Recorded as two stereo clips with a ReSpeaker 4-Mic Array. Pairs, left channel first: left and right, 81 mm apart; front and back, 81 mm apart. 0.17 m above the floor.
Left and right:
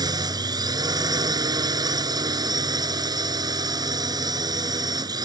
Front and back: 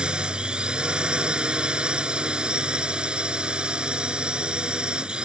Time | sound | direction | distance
0.0 | a drone | 105° right | ?